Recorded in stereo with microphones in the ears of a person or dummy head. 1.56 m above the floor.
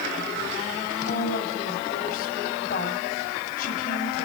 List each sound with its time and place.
1.1 s a woman speaking: 50° left (ahead or behind), 9.5 m